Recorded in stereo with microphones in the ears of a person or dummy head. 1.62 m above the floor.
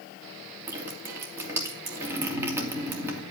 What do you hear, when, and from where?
0.7 s dripping: 10° right (ahead or behind), 3 m